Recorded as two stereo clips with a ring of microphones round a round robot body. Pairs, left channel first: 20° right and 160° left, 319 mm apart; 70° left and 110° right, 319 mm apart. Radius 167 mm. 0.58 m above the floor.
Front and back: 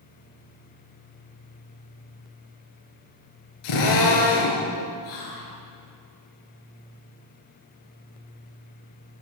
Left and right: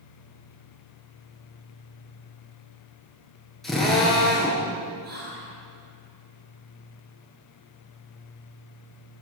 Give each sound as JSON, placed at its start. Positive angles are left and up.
{"t": 3.6, "sound": "a drill", "azimuth_deg": -20, "distance_m": 7.5}
{"t": 5.0, "sound": "whispering", "azimuth_deg": -50, "distance_m": 9.5}